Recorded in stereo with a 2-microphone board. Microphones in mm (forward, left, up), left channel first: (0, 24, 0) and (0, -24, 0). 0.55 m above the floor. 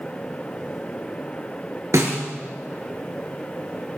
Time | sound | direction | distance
1.9 | a snare drum | 85° right | 3 m